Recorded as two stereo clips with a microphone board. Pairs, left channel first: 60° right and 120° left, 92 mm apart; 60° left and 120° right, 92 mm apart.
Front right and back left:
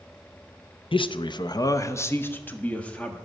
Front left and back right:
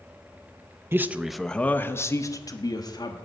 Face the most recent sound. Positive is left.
turn(degrees=20)